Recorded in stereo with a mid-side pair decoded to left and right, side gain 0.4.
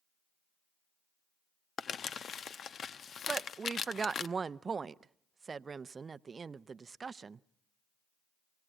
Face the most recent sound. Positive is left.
turn(degrees=-40)